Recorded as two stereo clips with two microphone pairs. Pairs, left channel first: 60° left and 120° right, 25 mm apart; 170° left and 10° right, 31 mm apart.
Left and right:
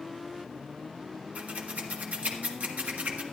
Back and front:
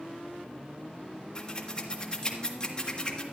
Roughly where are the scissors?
Behind right.